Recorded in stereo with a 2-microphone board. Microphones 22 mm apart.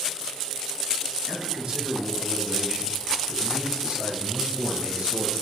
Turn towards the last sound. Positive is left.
turn(degrees=-70)  # may be behind; listen again after turning